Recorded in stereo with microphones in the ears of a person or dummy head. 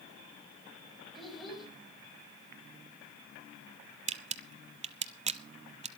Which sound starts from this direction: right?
A camera shutter, at 4.1 s.